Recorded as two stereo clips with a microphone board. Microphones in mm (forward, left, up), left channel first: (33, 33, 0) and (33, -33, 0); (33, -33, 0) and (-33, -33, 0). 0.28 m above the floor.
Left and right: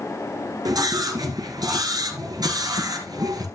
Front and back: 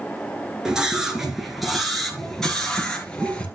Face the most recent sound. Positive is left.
turn(degrees=-75)